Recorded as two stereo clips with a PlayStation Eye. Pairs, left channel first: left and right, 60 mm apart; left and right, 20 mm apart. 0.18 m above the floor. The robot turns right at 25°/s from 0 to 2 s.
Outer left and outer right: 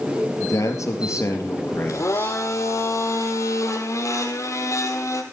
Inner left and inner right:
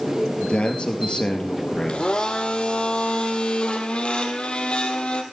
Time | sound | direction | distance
0.4 | a man speaking | 105° left | 3.5 m
1.9 | a blender | 60° left (ahead or behind) | 2 m